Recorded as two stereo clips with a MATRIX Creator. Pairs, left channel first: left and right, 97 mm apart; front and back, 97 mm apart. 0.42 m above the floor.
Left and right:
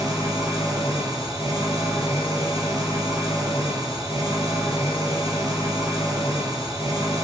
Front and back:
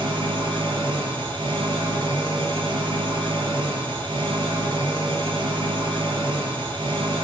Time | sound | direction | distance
0.0 | an engine running | 150° right | 6.5 m